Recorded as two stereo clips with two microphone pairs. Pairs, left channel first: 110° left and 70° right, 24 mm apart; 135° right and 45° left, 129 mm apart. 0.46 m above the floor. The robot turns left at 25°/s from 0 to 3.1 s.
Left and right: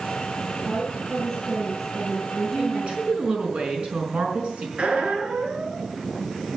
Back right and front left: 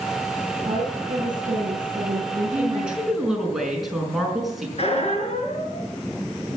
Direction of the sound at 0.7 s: 70° left.